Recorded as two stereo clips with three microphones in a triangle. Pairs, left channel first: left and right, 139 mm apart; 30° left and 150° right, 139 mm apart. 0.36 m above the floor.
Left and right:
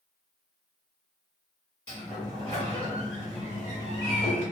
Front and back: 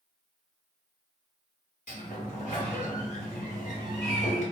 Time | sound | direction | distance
1.9 | a sliding door | 45° left | 1.2 m